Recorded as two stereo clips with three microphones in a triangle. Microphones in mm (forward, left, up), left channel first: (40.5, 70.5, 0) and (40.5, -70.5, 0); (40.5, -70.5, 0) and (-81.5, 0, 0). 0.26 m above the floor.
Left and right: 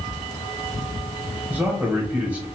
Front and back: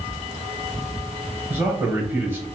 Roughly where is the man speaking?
Behind right.